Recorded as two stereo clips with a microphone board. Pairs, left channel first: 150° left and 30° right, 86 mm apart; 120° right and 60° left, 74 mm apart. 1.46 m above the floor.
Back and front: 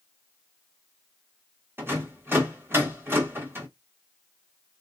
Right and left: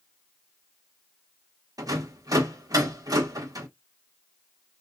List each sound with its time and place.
1.8 s a rattle: 30° left, 1.6 m